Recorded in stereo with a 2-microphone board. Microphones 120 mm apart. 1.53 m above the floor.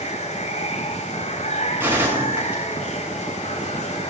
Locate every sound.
0.0 s running water: 75° left (ahead or behind), 4.5 m
1.8 s a gunshot: 15° right (ahead or behind), 8 m